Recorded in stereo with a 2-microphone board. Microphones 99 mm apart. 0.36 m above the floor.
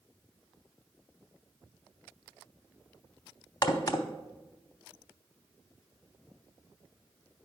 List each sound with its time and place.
3.6 s a crack: 40° left (ahead or behind), 0.7 m